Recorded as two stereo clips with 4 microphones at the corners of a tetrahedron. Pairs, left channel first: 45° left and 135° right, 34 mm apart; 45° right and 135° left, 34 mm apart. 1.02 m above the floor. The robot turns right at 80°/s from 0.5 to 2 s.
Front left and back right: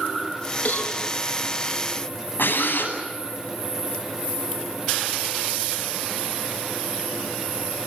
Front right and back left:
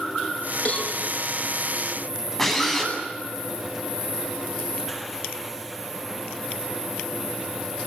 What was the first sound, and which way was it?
A cowbell, 5° left.